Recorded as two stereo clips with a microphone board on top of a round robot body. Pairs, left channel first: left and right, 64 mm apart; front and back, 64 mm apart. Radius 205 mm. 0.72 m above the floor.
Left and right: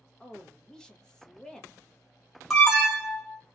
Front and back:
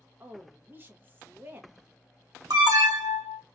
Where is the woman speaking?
160° left, 0.9 m.